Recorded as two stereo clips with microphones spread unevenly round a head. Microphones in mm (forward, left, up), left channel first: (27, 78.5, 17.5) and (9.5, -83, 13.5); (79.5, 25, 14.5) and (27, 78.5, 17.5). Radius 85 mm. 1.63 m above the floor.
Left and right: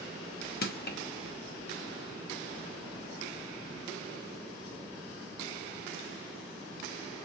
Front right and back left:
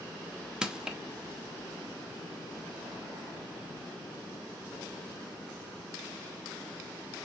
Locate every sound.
0.6 s crushing: 55° left, 0.8 m